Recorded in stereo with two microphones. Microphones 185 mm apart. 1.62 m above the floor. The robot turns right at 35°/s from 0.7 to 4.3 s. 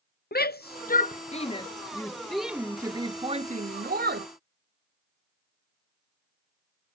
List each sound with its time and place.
0.3 s a shout: 60° left (ahead or behind); by 4.3 s 65° right (ahead or behind)